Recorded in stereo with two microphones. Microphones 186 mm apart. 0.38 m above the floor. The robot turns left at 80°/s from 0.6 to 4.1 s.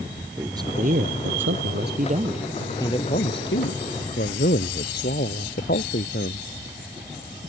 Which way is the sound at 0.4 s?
20° right.